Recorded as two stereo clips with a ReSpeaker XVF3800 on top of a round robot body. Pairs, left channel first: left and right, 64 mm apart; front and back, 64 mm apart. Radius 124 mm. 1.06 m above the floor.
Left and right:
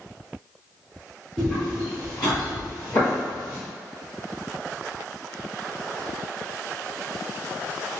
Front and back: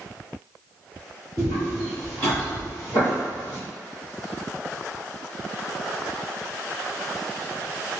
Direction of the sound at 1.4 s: 20° left.